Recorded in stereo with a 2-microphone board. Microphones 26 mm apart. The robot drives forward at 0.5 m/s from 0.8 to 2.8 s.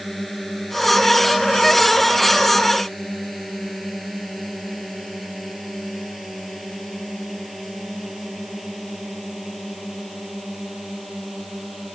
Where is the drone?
10° left (ahead or behind); by 12.0 s centre (ahead or behind).